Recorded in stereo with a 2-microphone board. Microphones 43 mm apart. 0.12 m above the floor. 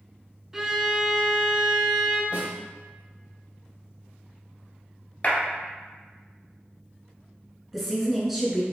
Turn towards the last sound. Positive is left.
turn(degrees=-5)  # may be behind; listen again after turning